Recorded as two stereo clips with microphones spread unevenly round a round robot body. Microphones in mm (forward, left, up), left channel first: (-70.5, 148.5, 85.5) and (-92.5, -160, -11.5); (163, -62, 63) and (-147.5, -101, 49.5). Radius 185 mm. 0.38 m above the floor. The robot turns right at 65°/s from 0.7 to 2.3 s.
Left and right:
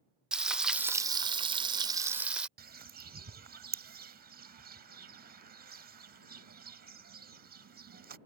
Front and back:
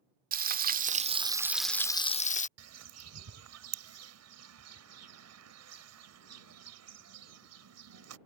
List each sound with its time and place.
0.3 s frying: 145° right; by 2.5 s 45° right
2.6 s a bird: 140° right